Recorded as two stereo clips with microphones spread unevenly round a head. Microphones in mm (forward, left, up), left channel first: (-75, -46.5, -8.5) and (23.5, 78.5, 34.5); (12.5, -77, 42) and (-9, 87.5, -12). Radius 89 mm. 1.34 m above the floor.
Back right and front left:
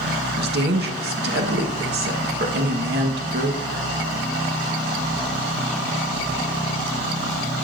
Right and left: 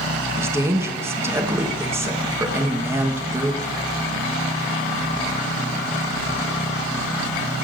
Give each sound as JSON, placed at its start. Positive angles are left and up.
{"t": 0.4, "sound": "a woman speaking", "azimuth_deg": 20, "distance_m": 1.2}